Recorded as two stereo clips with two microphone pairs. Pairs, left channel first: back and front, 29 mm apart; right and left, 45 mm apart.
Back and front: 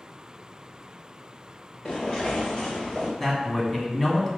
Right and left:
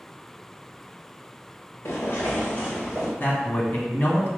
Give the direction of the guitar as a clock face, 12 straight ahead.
I don't hear a guitar.